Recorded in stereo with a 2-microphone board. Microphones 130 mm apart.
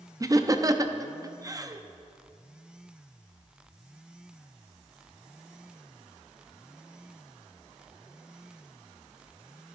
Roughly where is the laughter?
Right.